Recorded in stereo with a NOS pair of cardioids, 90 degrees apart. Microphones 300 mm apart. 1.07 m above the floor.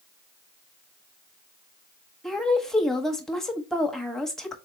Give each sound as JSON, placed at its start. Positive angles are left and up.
{"t": 2.2, "sound": "a woman speaking", "azimuth_deg": 0, "distance_m": 1.3}